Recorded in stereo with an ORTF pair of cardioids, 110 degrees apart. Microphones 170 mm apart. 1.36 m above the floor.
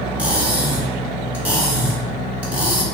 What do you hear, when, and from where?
0.2 s cutlery clinking: 10° right, 1.4 m